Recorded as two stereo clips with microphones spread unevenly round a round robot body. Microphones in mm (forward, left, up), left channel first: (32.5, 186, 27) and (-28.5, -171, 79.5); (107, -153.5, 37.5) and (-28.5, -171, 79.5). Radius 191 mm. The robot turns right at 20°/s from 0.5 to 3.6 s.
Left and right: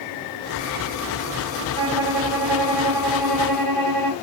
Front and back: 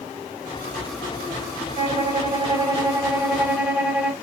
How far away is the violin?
About 2.5 m.